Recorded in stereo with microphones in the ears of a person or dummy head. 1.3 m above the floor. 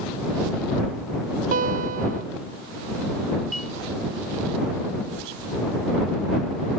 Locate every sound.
1.5 s a guitar: 45° right (ahead or behind)
3.5 s a clink: 5° left (ahead or behind)